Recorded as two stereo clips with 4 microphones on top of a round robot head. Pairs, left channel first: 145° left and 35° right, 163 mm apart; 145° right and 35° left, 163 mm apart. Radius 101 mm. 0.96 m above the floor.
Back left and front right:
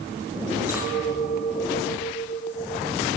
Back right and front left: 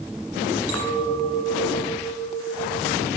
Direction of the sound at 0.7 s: 40° left.